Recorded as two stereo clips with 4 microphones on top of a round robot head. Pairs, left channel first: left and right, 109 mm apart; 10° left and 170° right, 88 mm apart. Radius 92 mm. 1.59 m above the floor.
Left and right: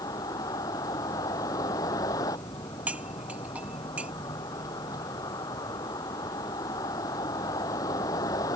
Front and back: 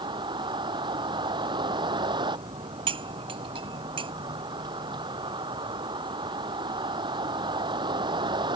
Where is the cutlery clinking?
170° right.